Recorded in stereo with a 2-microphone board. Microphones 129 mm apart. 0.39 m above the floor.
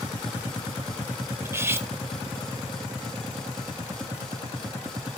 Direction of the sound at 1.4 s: 20° right (ahead or behind).